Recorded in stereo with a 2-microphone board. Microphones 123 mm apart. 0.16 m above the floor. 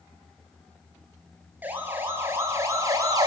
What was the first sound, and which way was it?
A siren, 15° right (ahead or behind).